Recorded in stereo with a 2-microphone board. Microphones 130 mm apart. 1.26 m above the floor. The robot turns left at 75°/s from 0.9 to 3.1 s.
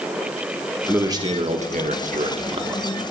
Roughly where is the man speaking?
Ahead.